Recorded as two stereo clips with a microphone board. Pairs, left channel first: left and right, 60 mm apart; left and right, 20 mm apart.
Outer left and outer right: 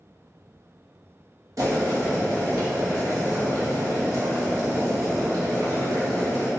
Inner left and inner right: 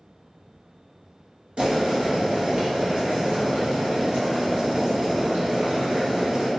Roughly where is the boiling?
Right.